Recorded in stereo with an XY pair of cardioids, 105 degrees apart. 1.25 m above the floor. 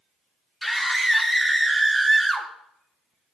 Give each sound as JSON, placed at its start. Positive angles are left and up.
{"t": 0.6, "sound": "a scream", "azimuth_deg": 0, "distance_m": 3.0}